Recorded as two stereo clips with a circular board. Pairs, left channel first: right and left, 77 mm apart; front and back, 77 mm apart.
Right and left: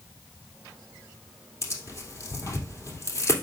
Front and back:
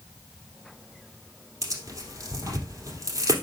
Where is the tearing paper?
135° right, 2.5 m.